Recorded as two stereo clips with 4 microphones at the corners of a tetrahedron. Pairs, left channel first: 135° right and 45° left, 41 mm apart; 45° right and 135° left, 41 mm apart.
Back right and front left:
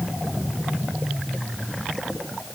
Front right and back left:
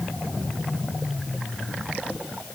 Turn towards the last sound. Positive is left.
No sound to turn to.